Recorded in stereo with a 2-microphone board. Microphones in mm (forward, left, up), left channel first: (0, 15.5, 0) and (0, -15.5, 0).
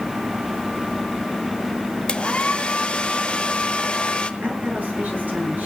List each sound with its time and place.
2.1 s a hair dryer: 35° left (ahead or behind), 1.1 m
4.4 s a woman speaking: 65° right (ahead or behind), 9 m